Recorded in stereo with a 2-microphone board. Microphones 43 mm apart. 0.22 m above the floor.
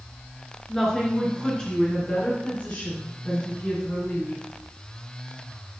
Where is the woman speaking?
10° left (ahead or behind), 3.5 m; by 4.4 s 50° left (ahead or behind), 3.5 m.